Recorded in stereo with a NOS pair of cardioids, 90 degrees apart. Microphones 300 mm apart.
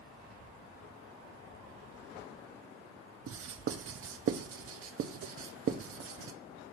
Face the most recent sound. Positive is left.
turn(degrees=-50)